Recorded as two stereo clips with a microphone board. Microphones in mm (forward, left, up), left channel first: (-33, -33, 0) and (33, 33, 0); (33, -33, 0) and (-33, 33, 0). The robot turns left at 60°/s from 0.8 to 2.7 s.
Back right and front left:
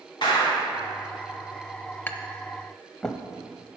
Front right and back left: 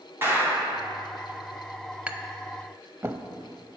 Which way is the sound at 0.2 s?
160° right.